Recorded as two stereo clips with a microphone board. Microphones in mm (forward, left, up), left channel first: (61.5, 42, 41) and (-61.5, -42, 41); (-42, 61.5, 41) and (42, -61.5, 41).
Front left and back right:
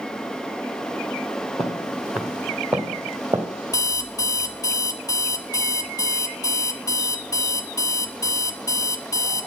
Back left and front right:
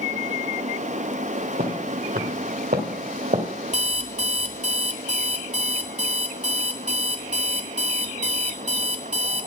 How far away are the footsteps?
About 2.5 m.